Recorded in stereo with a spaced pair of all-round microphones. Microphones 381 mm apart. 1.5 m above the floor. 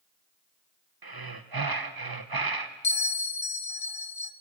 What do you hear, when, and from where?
1.0 s breathing: 65° right (ahead or behind), 1.0 m
2.8 s a bell: 65° left (ahead or behind), 0.9 m